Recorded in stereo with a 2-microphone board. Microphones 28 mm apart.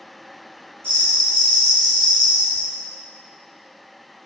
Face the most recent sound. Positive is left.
turn(degrees=40)  # may be behind; listen again after turning